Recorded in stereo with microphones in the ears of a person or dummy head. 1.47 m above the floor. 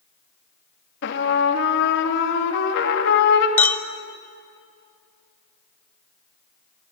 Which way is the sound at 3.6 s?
10° left (ahead or behind).